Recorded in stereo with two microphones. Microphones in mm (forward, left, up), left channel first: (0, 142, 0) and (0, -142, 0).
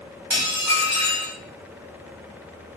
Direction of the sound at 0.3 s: 80° right.